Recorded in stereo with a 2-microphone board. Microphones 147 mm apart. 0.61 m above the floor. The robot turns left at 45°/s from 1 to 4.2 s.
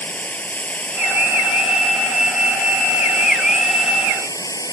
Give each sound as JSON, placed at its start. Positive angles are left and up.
{"t": 0.0, "sound": "running water", "azimuth_deg": 170}